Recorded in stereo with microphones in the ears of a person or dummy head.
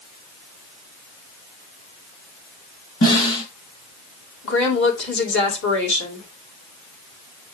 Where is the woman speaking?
65° left (ahead or behind), 2.5 m.